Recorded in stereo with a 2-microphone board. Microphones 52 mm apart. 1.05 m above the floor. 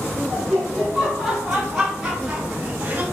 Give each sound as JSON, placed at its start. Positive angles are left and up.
{"t": 0.3, "sound": "laughter", "side_deg": 15, "distance_m": 2.0}